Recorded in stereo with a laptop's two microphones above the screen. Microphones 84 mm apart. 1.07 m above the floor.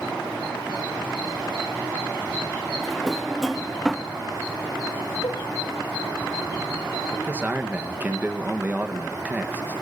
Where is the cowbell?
75° left (ahead or behind), 1.2 m.